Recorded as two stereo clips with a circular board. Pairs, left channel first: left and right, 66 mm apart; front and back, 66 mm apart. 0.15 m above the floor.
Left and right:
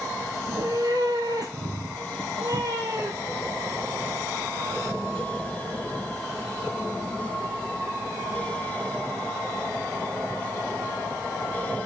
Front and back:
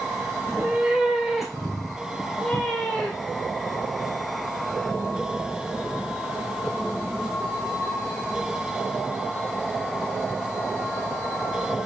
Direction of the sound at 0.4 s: 110° right.